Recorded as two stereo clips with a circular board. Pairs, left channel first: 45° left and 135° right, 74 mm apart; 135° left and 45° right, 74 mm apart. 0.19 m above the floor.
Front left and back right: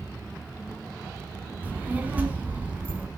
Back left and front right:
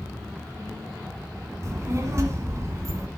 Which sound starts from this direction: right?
A child speaking, at 1.6 s.